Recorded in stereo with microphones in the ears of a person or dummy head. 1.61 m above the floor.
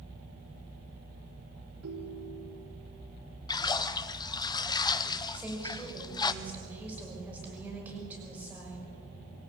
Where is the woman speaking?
10° right (ahead or behind), 6 m.